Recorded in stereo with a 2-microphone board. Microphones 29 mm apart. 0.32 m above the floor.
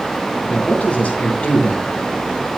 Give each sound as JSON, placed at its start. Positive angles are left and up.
{"t": 0.5, "sound": "a man speaking", "side_deg": 50, "distance_m": 3.5}